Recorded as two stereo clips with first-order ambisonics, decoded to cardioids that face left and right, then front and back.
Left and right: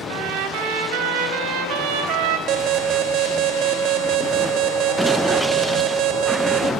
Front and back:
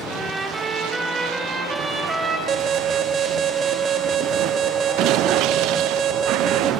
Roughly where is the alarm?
Behind right.